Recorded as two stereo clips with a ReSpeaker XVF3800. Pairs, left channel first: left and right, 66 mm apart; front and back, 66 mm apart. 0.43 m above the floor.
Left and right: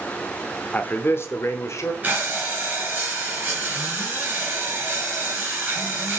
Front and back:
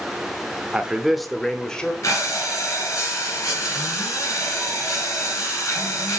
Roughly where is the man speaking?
Behind left.